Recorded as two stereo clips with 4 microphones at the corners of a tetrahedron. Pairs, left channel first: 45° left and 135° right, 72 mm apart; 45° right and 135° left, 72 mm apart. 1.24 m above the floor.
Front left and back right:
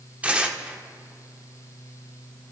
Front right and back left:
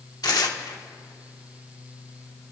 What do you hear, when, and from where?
0.2 s tearing paper: 65° right, 1.2 m